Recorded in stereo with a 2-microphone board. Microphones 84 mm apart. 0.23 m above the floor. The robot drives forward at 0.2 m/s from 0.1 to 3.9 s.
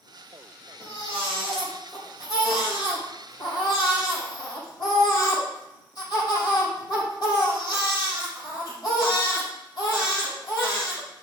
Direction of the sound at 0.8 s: 60° left (ahead or behind).